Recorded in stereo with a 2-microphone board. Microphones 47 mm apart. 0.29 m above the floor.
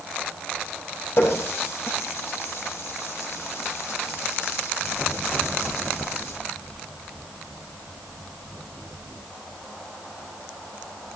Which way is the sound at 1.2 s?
65° left (ahead or behind).